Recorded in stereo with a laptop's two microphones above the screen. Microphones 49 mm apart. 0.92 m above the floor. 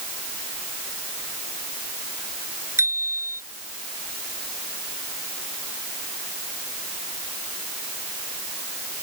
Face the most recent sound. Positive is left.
turn(degrees=-85)